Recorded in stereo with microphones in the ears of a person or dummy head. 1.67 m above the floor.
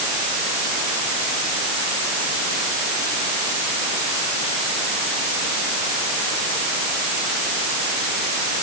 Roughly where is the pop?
I don't hear a pop.